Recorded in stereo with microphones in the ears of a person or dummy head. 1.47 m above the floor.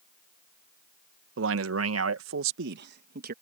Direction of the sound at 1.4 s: 75° right (ahead or behind).